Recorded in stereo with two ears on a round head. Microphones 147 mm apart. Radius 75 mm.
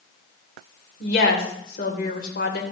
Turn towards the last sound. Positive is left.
turn(degrees=55)  # may be behind; listen again after turning